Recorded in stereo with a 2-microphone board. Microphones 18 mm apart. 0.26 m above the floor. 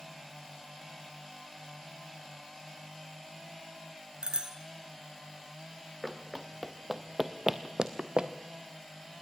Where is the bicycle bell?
60° right (ahead or behind), 2.5 m.